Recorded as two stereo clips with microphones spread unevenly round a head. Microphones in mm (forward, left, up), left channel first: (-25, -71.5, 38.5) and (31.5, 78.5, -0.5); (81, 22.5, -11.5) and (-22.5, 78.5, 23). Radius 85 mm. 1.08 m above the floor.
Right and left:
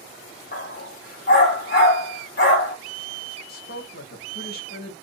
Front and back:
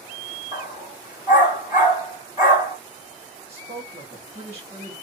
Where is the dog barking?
100° right, 1.5 m.